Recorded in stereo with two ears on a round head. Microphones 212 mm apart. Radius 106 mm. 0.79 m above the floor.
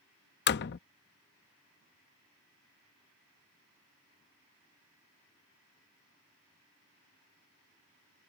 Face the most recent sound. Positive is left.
turn(degrees=50)  # may be behind; listen again after turning